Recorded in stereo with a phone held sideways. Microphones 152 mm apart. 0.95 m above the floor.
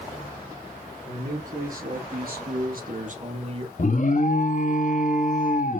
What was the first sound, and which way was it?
A man speaking, 60° right (ahead or behind).